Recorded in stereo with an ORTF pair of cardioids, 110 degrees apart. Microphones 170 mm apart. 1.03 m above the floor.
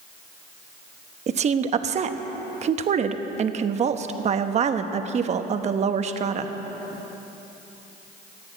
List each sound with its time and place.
1.3 s a woman speaking: 40° right, 1.1 m